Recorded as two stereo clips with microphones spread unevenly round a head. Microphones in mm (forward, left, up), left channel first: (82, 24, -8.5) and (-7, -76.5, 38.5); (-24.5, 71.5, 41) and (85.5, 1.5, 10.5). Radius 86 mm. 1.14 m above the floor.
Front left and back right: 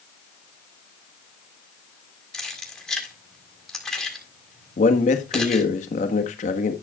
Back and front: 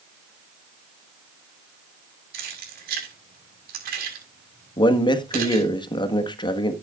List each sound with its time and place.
2.3 s keys jangling: 40° right, 6 m
4.8 s a man speaking: 90° left, 1.5 m